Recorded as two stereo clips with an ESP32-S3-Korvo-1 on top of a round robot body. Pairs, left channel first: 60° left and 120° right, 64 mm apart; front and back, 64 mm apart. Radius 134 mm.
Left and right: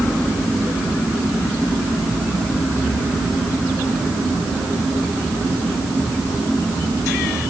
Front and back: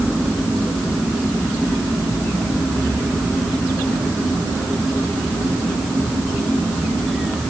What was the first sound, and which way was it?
Only background noise.